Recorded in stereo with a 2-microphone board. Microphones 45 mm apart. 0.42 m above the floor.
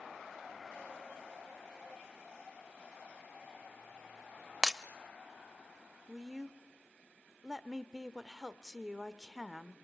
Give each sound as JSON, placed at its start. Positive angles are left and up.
{"t": 4.6, "sound": "breaking glass", "side_deg": -15, "distance_m": 0.7}
{"t": 6.1, "sound": "a woman speaking", "side_deg": -15, "distance_m": 0.9}